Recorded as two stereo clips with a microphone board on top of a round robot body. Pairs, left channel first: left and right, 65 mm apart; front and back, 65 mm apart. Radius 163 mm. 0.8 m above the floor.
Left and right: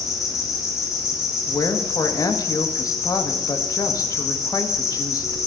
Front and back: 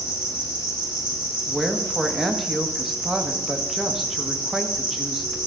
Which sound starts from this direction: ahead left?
An insect, at 0.0 s.